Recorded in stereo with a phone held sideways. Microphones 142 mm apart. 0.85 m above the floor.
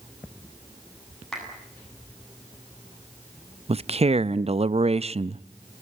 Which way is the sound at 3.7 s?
45° right (ahead or behind).